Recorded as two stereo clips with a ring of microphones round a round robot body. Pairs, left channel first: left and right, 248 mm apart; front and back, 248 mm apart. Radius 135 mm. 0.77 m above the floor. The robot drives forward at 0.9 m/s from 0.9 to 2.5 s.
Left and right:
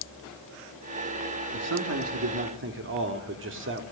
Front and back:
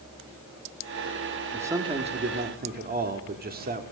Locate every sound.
1.5 s a man speaking: 95° right, 1.5 m; by 3.8 s 130° right, 1.8 m